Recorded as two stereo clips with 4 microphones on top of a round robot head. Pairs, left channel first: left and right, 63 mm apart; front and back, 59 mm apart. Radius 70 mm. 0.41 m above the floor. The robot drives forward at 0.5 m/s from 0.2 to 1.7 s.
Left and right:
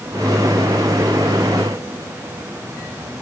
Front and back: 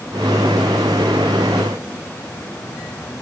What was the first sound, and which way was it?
Only background noise.